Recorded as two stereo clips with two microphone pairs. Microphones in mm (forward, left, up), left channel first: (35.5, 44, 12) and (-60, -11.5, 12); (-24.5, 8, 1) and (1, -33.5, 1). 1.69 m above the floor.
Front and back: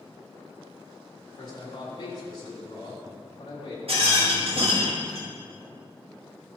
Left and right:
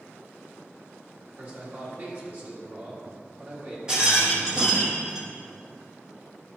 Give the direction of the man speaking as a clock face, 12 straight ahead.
12 o'clock.